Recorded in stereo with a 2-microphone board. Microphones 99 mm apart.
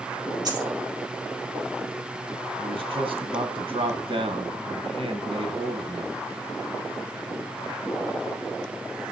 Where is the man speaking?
65° right (ahead or behind), 2 m.